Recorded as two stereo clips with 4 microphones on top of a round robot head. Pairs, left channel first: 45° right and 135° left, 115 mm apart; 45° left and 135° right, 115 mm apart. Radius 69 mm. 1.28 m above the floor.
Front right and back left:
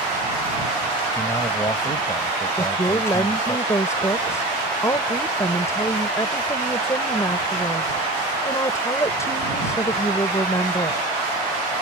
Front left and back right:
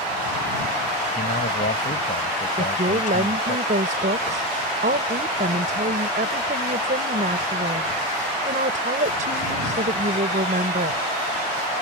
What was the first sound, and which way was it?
A man speaking, 25° left.